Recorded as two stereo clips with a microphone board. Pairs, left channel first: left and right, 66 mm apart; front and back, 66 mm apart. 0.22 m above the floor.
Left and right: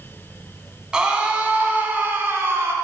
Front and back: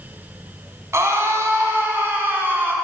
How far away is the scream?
About 1.9 m.